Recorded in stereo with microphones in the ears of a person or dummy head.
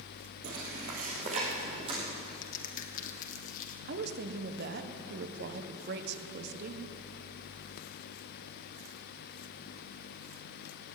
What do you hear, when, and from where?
0.4 s footsteps: 60° right (ahead or behind), 3 m; by 2.3 s 30° right (ahead or behind), 4.5 m
2.4 s a crack: 50° left (ahead or behind), 1.7 m
3.9 s a woman speaking: 55° right (ahead or behind), 1.2 m